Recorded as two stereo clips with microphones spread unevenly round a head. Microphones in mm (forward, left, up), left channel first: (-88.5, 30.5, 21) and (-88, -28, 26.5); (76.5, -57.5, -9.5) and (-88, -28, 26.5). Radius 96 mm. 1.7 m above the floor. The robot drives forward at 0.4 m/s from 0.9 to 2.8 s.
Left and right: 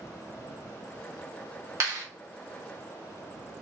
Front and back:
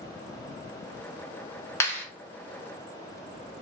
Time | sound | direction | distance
1.8 | a clap | 90° right | 1.0 m